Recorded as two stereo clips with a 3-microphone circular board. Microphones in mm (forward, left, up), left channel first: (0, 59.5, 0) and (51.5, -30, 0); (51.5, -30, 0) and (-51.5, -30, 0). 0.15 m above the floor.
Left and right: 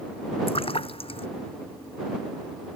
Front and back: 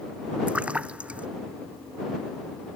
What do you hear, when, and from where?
0.5 s a splash: 100° left